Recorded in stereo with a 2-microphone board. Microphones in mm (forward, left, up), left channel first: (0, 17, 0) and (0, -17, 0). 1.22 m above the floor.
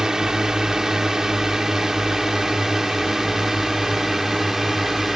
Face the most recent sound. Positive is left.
turn(degrees=-5)  # may be behind; listen again after turning